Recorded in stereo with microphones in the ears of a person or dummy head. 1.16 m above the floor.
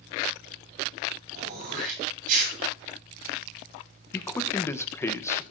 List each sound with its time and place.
1.3 s throat clearing: 50° right (ahead or behind), 8 m
4.1 s a man speaking: 15° left (ahead or behind), 1.0 m